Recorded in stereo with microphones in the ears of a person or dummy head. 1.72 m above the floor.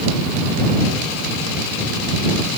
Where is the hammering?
I don't hear hammering.